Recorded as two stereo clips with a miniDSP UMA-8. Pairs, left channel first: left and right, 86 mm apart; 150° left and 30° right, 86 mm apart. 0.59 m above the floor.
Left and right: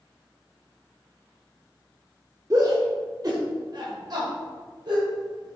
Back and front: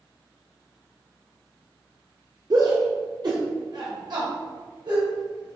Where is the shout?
50° right, 1.3 m; by 5.6 s 60° right, 3 m.